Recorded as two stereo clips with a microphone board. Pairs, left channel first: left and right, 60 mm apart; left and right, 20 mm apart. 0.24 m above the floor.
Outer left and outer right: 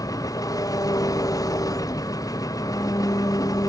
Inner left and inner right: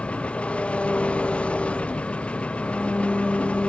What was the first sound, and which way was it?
An engine running, 80° left.